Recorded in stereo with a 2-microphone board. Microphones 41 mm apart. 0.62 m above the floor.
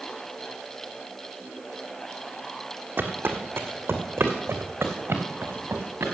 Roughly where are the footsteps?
Right.